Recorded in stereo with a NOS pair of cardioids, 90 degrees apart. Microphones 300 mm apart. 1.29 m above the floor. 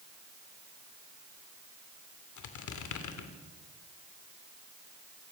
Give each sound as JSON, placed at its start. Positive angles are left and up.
{"t": 2.4, "sound": "a squeak", "azimuth_deg": 65, "distance_m": 3.0}